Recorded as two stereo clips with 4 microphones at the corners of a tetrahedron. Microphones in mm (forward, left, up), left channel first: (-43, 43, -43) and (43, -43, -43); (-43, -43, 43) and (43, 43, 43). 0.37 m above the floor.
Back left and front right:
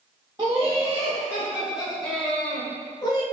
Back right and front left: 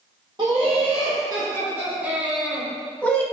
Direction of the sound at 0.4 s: Straight ahead.